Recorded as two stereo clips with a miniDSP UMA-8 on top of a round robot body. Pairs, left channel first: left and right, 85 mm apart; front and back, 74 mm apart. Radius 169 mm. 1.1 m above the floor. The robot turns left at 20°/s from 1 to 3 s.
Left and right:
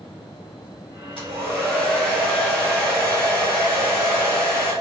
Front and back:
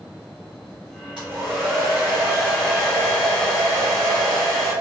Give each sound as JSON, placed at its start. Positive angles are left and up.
{"t": 1.2, "sound": "a hair dryer", "azimuth_deg": 100, "distance_m": 1.6}